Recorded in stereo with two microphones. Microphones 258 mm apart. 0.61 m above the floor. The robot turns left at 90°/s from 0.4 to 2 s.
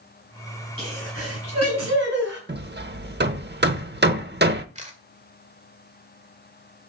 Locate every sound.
0.8 s a sneeze: 20° right, 5 m; by 2.4 s 130° right, 5 m
2.5 s hammering: 40° right (ahead or behind), 0.7 m
4.8 s a camera shutter: 25° right (ahead or behind), 1.7 m